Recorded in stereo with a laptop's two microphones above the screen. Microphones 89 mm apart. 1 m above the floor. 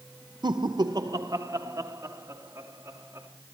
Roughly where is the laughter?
Right.